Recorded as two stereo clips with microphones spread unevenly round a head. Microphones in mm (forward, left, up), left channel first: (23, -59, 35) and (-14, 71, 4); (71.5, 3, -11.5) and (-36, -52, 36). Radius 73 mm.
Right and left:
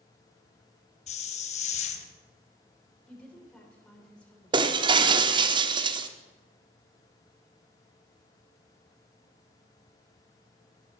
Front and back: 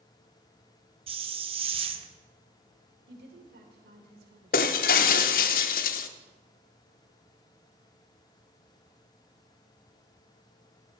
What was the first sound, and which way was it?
A hiss, 115° right.